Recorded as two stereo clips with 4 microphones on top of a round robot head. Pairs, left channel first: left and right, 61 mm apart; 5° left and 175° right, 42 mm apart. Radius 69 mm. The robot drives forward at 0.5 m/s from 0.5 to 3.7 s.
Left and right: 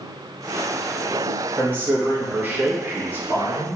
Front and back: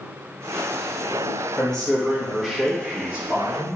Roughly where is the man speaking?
Ahead right.